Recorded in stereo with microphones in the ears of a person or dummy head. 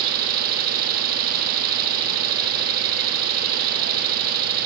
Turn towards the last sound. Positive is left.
turn(degrees=-50)  # may be behind; listen again after turning